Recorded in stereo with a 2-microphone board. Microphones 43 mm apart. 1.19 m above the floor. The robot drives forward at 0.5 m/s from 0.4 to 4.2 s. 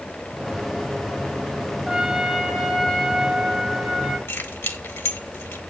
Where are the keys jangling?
75° left (ahead or behind), 1.4 m.